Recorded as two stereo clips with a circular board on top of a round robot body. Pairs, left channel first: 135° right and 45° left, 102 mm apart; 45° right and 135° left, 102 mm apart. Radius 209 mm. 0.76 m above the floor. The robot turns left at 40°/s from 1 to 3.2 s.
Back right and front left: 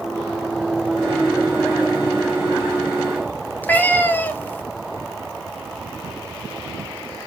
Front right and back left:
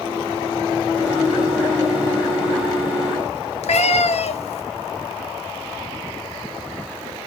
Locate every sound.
3.6 s a cat meowing: 60° right, 0.7 m